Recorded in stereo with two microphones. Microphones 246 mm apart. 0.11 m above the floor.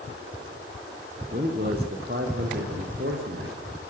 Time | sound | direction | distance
1.3 | a man speaking | 40° right (ahead or behind) | 5.5 m